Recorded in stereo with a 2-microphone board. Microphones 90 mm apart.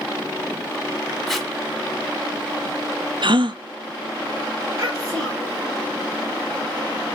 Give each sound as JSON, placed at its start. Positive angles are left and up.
{"t": 1.3, "sound": "tape being pulled", "side_deg": 0, "distance_m": 1.1}
{"t": 3.2, "sound": "a gasp", "side_deg": -65, "distance_m": 0.6}
{"t": 4.8, "sound": "a child speaking", "side_deg": -40, "distance_m": 4.5}